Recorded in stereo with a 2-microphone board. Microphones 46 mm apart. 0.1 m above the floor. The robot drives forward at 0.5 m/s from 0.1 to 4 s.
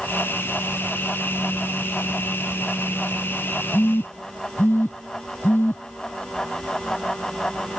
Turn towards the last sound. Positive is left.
turn(degrees=55)  # may be behind; listen again after turning